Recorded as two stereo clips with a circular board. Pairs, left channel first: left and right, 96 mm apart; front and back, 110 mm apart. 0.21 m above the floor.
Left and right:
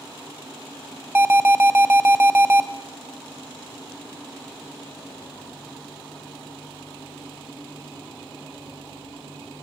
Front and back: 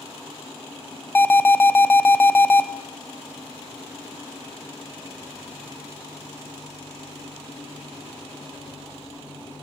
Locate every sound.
1.1 s an alarm: 50° right, 0.7 m